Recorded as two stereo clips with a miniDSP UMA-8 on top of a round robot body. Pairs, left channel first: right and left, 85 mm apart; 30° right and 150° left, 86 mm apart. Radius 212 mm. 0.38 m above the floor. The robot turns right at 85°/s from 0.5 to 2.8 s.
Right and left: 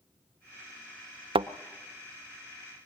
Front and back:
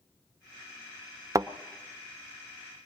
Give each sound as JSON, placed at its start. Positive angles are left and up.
{"t": 1.4, "sound": "a thud", "azimuth_deg": 100, "distance_m": 0.7}